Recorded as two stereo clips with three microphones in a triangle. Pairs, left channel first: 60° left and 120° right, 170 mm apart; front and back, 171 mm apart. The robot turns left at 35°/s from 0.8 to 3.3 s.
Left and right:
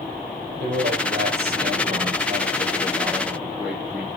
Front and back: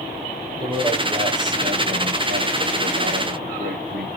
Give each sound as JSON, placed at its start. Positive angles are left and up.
{"t": 0.6, "sound": "a man speaking", "azimuth_deg": -115, "distance_m": 8.0}